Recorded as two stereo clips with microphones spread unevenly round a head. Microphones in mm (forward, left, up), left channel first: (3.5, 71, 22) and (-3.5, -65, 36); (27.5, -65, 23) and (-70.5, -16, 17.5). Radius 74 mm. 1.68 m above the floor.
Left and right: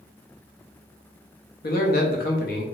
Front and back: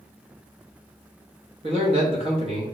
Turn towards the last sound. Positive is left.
turn(degrees=105)